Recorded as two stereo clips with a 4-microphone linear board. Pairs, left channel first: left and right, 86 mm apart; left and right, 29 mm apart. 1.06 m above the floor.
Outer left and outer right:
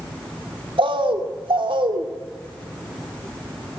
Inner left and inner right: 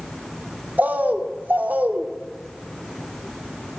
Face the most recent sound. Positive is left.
turn(degrees=-85)